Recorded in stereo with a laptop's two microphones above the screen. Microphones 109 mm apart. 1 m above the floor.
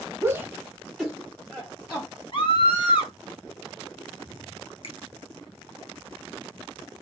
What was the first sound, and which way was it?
A shout, 25° right (ahead or behind).